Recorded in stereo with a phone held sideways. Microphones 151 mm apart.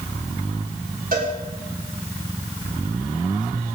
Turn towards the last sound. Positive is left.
turn(degrees=-80)